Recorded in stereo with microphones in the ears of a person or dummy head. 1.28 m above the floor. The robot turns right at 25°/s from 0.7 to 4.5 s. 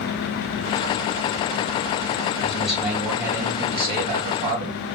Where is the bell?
I don't hear a bell.